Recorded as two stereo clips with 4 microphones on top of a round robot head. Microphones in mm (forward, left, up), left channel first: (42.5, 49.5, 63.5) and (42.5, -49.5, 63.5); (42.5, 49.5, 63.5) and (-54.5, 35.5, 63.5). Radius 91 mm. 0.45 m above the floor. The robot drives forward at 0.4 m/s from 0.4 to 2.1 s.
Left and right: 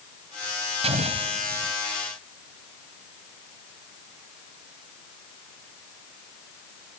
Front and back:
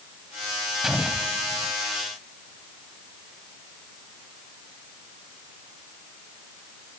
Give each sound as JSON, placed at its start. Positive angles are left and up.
{"t": 0.8, "sound": "an explosion", "azimuth_deg": -85}